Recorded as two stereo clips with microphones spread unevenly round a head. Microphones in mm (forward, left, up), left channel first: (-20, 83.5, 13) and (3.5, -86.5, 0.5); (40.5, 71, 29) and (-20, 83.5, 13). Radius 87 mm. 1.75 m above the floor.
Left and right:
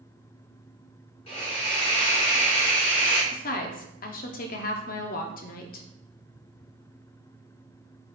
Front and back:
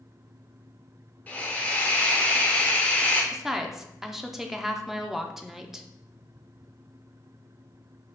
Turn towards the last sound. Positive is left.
turn(degrees=75)